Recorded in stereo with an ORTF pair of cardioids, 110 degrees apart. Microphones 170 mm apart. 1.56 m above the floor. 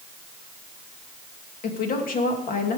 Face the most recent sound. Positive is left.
turn(degrees=55)